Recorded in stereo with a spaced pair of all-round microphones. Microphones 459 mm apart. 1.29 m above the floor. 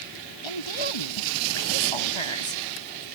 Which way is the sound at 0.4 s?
85° left.